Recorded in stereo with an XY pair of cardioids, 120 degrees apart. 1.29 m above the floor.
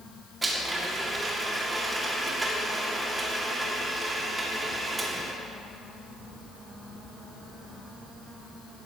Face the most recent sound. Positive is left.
turn(degrees=-20)